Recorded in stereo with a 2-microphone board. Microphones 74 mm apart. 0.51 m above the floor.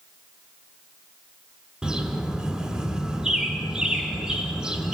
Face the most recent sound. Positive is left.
turn(degrees=-10)  # may be behind; listen again after turning